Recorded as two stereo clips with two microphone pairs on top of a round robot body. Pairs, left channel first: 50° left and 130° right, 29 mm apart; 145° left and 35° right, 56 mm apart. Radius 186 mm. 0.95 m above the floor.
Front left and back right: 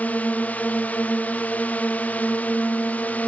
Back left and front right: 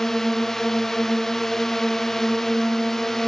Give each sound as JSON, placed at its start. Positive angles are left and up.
{"t": 0.0, "sound": "a drone", "azimuth_deg": 65}